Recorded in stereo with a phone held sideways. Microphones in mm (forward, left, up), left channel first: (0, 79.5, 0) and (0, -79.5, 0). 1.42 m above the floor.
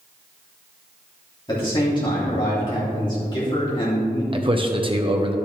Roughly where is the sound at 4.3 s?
Right.